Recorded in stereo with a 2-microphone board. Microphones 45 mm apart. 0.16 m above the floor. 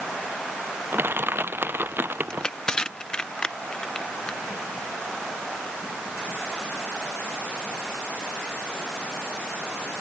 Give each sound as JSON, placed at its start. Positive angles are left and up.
{"t": 0.9, "sound": "crushing", "side_deg": -55}
{"t": 2.3, "sound": "crushing", "side_deg": 20}